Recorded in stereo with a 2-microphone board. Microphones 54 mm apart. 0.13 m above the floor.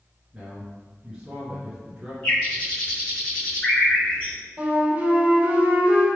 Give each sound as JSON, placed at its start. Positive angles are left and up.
{"t": 0.3, "sound": "a man speaking", "side_deg": -10, "distance_m": 1.8}
{"t": 2.2, "sound": "a bird", "side_deg": 35, "distance_m": 1.8}
{"t": 4.6, "sound": "a flute", "side_deg": -35, "distance_m": 1.9}